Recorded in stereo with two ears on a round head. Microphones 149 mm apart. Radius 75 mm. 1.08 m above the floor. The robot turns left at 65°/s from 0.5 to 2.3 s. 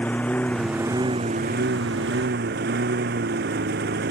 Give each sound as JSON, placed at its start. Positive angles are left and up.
{"t": 0.0, "sound": "a lawn mower", "azimuth_deg": 10}